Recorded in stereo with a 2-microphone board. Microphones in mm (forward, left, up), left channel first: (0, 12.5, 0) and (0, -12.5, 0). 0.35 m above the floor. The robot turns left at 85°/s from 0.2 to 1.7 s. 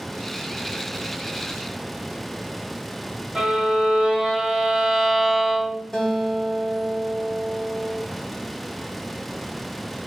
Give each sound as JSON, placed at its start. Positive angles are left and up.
{"t": 3.4, "sound": "a violin", "side_deg": -25, "distance_m": 1.1}
{"t": 5.9, "sound": "a guitar", "side_deg": 20, "distance_m": 1.0}